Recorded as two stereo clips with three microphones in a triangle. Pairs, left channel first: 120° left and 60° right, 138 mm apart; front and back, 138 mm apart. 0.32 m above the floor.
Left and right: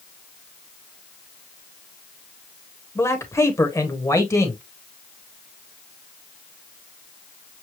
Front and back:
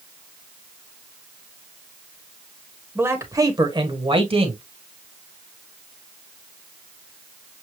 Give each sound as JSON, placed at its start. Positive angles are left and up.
{"t": 3.0, "sound": "a man speaking", "azimuth_deg": 140, "distance_m": 1.2}